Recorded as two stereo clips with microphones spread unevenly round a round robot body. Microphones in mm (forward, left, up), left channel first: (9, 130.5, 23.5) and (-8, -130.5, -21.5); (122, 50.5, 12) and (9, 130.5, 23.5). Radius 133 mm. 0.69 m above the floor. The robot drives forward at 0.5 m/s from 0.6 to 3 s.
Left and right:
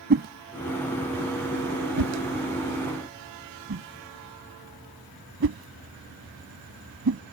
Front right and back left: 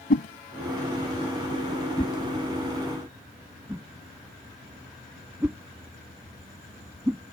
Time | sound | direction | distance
0.1 | a whoosh | 40° right | ?